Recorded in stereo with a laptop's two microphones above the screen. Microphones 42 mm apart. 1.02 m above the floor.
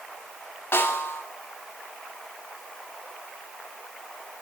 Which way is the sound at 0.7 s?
70° left (ahead or behind).